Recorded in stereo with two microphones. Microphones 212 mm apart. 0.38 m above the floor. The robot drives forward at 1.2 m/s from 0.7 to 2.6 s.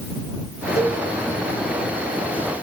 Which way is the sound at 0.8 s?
30° left (ahead or behind).